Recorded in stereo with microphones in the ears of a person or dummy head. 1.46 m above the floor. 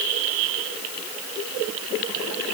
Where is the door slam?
I don't hear a door slam.